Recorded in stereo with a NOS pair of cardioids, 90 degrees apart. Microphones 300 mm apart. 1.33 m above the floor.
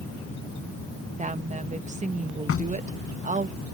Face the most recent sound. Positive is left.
turn(degrees=45)